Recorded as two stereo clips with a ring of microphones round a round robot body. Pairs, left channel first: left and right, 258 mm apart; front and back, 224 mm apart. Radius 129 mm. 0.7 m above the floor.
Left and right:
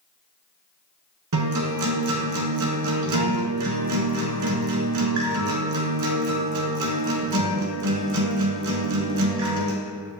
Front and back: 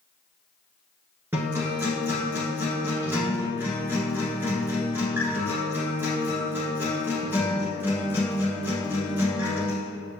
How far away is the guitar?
About 1.4 m.